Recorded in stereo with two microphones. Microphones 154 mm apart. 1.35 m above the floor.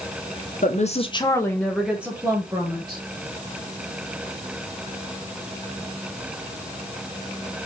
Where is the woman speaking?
55° left (ahead or behind), 1.1 m; by 3.0 s 25° right (ahead or behind), 2.0 m.